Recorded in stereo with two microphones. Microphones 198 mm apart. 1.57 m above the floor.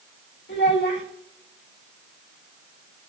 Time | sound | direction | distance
0.5 | a child speaking | 60° left (ahead or behind) | 1.9 m